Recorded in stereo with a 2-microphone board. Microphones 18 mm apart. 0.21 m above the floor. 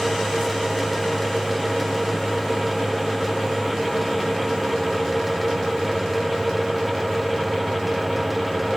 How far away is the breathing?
No breathing in this recording.